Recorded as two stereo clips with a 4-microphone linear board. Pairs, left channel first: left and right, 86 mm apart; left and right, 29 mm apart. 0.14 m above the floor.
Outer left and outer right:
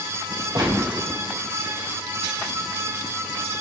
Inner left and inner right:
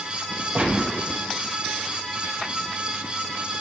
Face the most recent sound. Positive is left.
turn(degrees=-60)  # may be behind; listen again after turning